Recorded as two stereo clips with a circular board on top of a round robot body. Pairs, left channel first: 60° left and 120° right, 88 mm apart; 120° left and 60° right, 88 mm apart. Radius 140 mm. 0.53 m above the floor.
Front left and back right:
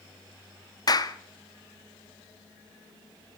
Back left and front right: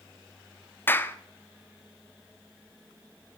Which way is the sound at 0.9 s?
65° left.